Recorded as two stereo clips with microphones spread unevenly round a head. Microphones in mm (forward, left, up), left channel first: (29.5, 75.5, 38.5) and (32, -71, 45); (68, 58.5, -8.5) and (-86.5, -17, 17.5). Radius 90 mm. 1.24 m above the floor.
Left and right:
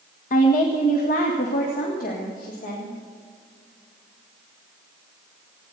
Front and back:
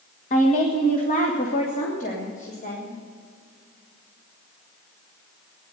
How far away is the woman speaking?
About 1.6 m.